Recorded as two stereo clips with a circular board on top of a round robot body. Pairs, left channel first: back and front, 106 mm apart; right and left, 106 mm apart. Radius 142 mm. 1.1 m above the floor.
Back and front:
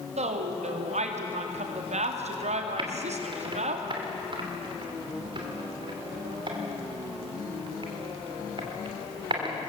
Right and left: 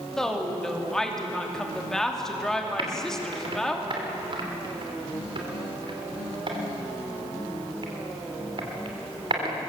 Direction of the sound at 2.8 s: 45° left.